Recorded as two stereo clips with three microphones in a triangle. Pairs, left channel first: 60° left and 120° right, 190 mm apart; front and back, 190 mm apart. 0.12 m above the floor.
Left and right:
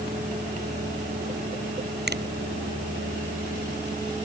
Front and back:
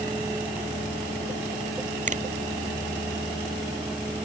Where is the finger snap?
135° right.